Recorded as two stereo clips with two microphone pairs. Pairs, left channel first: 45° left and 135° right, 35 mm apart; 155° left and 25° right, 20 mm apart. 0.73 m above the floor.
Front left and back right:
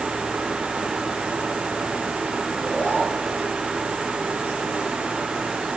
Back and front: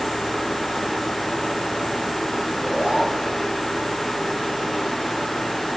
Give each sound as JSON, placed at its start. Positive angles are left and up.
{"t": 2.5, "sound": "a zipper", "azimuth_deg": -10, "distance_m": 8.0}